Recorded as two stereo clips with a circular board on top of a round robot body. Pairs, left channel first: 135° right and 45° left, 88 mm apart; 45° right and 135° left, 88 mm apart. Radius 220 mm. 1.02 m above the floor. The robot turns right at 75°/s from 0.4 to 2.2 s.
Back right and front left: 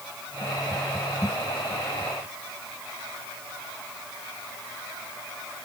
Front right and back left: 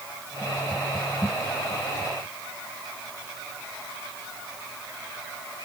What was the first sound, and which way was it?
Only background noise.